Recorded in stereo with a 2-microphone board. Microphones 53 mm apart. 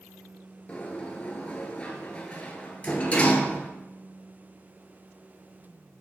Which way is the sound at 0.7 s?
25° left (ahead or behind).